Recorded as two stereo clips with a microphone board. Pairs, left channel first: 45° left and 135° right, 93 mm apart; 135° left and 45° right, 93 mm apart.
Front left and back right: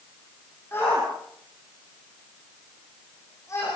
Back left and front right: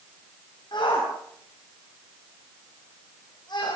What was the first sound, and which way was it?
A shout, 110° left.